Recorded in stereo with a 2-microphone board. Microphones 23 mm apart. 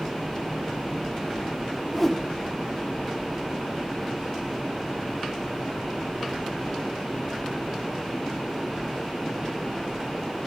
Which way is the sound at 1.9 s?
5° left (ahead or behind).